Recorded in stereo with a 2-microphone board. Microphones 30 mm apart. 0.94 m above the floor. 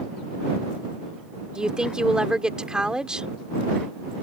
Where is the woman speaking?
30° right (ahead or behind).